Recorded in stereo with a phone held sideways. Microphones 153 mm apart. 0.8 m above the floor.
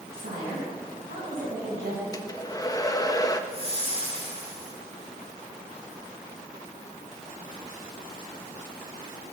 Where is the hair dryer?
25° left (ahead or behind), 0.6 m.